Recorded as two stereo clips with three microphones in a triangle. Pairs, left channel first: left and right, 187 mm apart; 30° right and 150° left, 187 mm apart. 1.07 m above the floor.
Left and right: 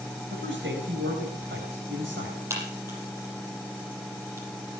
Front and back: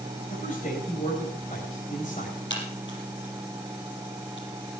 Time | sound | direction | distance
0.3 | a man speaking | 80° right | 4.5 m
2.5 | a crack | 15° right | 7.5 m